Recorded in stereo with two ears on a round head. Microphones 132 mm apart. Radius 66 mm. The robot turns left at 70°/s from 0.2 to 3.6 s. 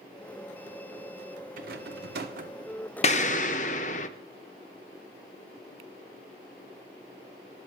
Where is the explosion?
115° left, 0.5 m; by 4.1 s 80° left, 0.5 m.